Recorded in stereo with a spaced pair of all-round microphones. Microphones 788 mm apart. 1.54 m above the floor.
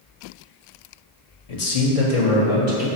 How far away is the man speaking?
About 0.7 m.